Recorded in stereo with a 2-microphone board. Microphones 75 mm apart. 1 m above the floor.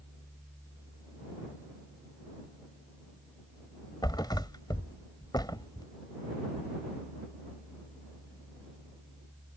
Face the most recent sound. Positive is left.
turn(degrees=80)